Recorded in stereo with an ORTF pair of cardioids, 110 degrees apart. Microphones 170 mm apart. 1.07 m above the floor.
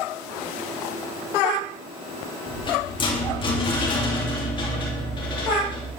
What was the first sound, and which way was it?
A rattle, 30° left.